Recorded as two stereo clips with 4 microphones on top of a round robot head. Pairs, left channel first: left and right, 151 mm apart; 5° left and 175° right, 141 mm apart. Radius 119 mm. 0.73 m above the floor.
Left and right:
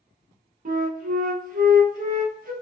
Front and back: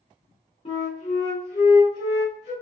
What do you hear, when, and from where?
0.7 s a flute: 55° right, 0.6 m